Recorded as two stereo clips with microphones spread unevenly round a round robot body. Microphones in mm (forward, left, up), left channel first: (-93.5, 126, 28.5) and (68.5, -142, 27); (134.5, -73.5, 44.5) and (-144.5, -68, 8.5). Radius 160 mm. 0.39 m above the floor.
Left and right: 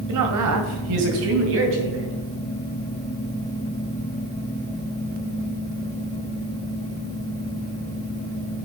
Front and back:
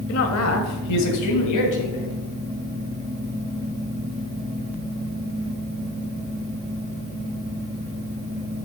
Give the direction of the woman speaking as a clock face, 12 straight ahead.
1 o'clock.